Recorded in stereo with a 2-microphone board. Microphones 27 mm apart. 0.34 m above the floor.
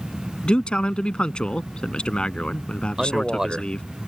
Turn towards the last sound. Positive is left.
turn(degrees=-20)  # may be behind; listen again after turning